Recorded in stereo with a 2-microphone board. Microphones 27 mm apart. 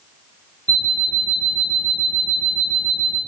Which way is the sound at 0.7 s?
40° left (ahead or behind).